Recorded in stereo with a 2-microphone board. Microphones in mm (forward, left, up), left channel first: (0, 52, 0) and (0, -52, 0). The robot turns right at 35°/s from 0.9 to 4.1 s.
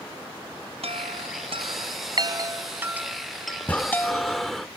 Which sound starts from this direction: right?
A chime, at 0.8 s.